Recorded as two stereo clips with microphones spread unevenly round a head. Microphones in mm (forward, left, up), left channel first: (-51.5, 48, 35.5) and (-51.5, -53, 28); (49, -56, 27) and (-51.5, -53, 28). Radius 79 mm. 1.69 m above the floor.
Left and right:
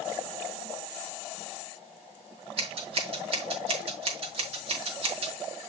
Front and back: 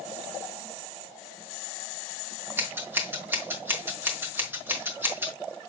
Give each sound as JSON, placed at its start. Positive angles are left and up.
{"t": 2.6, "sound": "scissors", "azimuth_deg": -115, "distance_m": 4.5}